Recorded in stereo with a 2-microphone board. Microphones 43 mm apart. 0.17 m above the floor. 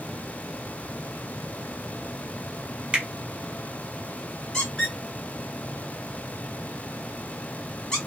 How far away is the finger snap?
About 1.0 m.